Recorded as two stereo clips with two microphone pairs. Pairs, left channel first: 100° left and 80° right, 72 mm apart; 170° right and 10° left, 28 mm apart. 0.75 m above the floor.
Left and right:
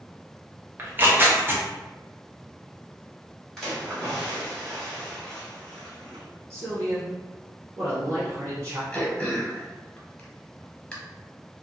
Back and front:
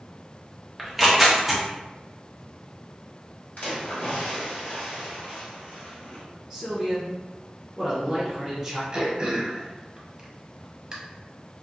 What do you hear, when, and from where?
0.8 s tearing paper: 80° right, 0.6 m
3.6 s a splash: 175° right, 1.4 m
6.5 s a man speaking: 65° right, 1.6 m
8.9 s throat clearing: 40° left, 0.7 m